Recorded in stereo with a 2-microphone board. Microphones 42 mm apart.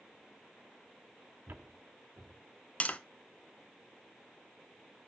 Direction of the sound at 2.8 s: 35° left (ahead or behind).